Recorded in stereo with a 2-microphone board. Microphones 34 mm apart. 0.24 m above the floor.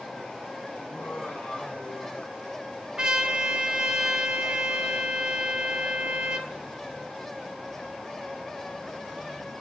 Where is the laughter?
30° left (ahead or behind), 3.5 m; by 2.7 s 45° left (ahead or behind), 3.5 m.